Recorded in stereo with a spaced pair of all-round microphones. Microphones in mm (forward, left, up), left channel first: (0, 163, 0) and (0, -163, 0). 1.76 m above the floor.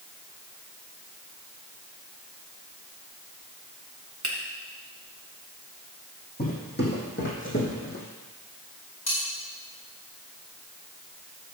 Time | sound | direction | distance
4.2 | a finger snap | 60° right (ahead or behind) | 1.9 m
6.4 | footsteps | 30° left (ahead or behind) | 4 m
9.1 | cutlery clinking | 55° left (ahead or behind) | 5 m